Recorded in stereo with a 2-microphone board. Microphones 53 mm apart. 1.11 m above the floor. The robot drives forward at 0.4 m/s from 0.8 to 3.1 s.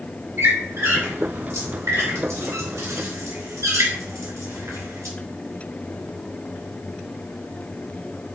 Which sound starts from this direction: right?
A squeak, at 0.4 s.